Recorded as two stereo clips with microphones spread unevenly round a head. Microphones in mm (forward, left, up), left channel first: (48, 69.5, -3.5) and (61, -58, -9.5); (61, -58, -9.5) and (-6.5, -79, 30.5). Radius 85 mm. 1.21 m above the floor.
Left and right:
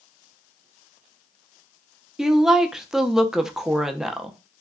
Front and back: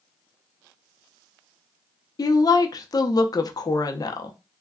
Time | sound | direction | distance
2.2 | a woman speaking | straight ahead | 0.6 m